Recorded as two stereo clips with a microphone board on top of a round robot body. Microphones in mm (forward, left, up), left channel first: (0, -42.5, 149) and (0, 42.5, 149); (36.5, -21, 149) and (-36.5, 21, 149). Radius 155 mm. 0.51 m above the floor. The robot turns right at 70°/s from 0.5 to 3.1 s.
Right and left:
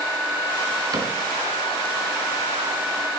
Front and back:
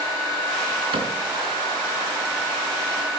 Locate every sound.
0.9 s a cupboard door: 135° left, 4 m; by 1.1 s 150° left, 4 m